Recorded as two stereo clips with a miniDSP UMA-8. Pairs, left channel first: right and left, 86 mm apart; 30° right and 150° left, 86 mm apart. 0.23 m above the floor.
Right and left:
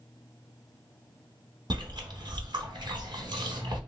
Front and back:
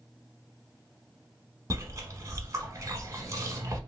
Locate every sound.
1.7 s chewing: 100° left, 0.9 m